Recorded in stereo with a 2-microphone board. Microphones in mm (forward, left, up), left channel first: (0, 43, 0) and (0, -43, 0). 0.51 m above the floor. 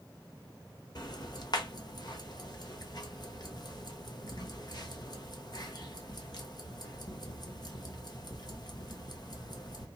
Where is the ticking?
55° left (ahead or behind), 0.9 m.